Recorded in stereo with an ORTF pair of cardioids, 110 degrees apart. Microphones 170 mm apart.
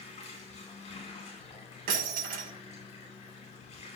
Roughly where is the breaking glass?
Ahead right.